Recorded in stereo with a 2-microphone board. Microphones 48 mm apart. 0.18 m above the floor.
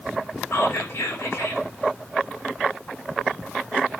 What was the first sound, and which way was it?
Whispering, 60° left (ahead or behind).